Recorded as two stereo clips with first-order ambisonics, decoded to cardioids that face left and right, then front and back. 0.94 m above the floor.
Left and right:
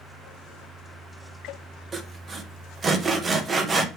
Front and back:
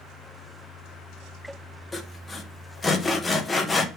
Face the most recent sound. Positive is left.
turn(degrees=-55)